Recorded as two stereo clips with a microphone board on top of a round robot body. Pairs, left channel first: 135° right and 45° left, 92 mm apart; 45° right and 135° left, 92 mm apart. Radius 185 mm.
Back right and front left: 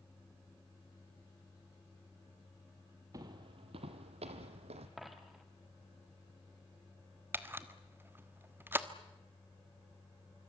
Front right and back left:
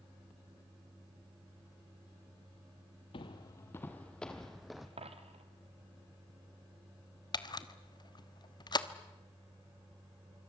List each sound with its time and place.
3.1 s footsteps: 10° right, 0.7 m; by 4.9 s 50° left, 1.3 m
5.0 s a dropped coin: 135° left, 1.6 m
7.3 s a camera shutter: 20° right, 1.5 m